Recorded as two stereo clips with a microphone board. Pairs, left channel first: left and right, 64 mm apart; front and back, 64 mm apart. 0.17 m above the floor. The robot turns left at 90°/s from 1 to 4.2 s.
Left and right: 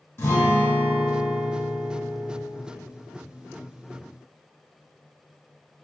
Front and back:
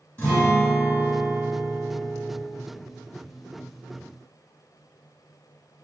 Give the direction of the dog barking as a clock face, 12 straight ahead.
I don't hear a dog barking.